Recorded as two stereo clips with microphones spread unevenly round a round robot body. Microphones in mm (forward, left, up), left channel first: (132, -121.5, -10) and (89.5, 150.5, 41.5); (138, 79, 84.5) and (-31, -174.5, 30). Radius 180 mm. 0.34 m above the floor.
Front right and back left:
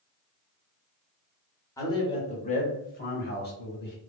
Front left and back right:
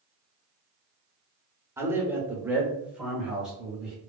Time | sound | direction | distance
1.8 | a man speaking | 90° right | 0.9 m